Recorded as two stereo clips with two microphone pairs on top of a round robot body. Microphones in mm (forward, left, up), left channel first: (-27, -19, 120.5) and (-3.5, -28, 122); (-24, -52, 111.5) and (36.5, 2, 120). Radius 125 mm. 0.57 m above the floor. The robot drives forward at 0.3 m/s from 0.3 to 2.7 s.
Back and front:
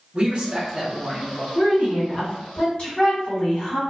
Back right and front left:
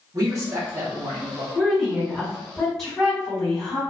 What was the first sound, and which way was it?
A man speaking, 25° left.